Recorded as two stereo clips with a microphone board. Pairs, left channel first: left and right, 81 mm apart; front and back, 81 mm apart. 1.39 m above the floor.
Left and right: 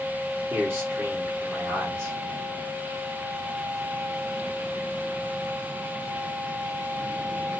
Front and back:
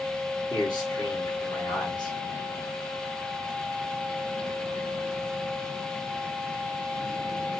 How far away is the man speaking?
About 1.6 m.